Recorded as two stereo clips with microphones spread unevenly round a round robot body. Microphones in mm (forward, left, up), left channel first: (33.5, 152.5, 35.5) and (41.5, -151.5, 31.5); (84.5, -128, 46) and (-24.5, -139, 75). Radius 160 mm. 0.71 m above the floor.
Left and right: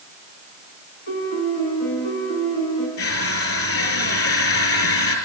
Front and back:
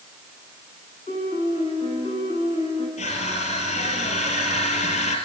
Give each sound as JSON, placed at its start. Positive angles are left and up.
{"t": 1.1, "sound": "a piano", "azimuth_deg": 115, "distance_m": 8.0}
{"t": 3.0, "sound": "crushing", "azimuth_deg": 50, "distance_m": 5.0}